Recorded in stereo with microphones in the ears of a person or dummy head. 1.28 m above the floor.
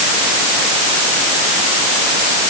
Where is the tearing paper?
No tearing paper in this recording.